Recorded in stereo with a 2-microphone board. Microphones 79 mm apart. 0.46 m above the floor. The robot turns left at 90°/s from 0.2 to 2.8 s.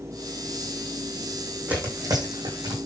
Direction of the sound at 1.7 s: 15° right (ahead or behind).